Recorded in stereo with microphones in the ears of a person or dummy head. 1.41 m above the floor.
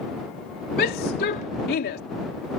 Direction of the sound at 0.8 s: 50° left (ahead or behind).